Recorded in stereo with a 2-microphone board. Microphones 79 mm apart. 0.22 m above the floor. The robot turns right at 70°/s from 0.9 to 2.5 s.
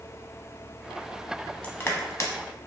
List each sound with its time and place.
1.6 s crushing: 20° left (ahead or behind), 0.6 m; by 2.3 s 40° left (ahead or behind), 0.6 m